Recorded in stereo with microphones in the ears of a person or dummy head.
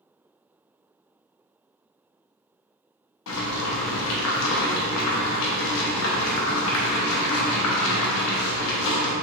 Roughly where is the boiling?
Left.